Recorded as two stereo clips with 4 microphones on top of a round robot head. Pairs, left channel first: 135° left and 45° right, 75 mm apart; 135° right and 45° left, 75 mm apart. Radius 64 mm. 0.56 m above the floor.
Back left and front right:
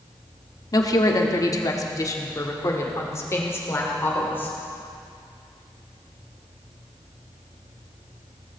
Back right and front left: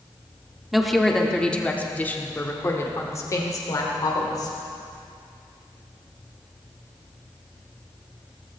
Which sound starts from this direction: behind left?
A woman speaking, at 0.7 s.